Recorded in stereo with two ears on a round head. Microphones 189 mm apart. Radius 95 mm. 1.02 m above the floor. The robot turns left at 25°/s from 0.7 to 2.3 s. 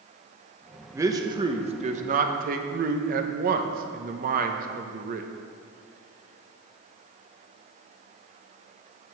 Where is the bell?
No bell in this recording.